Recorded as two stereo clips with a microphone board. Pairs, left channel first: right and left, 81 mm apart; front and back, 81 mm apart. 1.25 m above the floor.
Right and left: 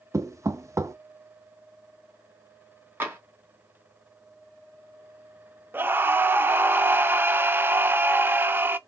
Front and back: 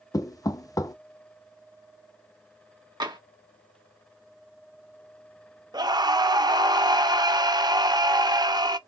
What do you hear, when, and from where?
0.1 s knocking: 40° left, 0.5 m
3.0 s tapping: 155° left, 1.5 m
5.7 s a scream: 155° left, 0.7 m